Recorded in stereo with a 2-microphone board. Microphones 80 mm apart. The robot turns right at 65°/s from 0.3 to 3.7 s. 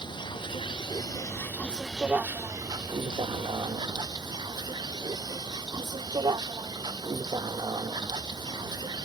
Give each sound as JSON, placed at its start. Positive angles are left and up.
{"t": 0.0, "sound": "a vehicle", "azimuth_deg": 75}